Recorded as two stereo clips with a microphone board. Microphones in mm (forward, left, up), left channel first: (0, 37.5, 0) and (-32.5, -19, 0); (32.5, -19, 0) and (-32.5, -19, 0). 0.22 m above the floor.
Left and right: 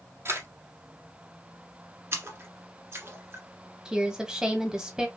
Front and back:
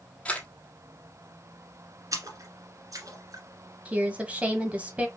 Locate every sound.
0.2 s a camera shutter: 75° right, 1.1 m
2.1 s a splash: 165° right, 1.6 m
3.9 s a woman speaking: straight behind, 1.3 m